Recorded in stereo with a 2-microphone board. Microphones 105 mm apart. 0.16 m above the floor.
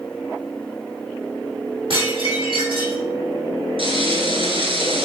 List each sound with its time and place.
1.9 s dishes clattering: 55° right (ahead or behind), 4.5 m
3.8 s frying: 60° right (ahead or behind), 2.5 m